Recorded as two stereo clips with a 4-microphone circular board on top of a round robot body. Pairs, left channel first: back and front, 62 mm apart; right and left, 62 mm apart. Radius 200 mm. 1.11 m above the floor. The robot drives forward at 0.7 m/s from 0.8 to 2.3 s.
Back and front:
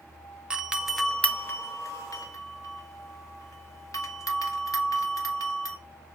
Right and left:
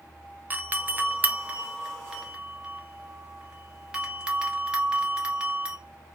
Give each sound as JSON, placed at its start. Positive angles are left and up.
{"t": 0.5, "sound": "a doorbell", "azimuth_deg": 65, "distance_m": 0.7}